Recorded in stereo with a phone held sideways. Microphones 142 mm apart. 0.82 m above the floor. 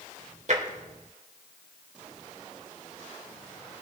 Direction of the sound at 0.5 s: 55° right (ahead or behind).